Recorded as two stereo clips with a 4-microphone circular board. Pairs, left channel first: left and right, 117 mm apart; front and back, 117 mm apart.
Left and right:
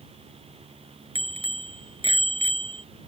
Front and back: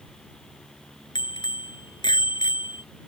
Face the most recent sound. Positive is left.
turn(degrees=-50)